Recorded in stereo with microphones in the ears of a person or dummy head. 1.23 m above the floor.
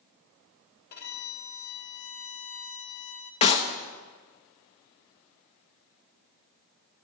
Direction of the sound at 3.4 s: 35° left (ahead or behind).